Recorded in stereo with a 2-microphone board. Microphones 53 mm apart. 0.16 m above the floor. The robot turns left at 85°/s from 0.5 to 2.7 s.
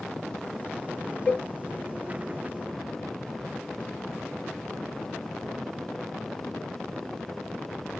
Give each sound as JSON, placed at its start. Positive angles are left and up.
{"t": 1.3, "sound": "a cowbell", "side_deg": 25, "distance_m": 0.7}